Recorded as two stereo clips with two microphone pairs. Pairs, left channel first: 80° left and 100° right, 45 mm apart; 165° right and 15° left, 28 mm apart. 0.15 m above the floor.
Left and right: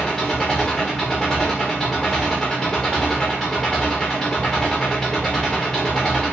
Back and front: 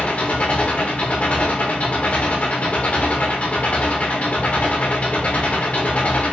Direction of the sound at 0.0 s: 155° left.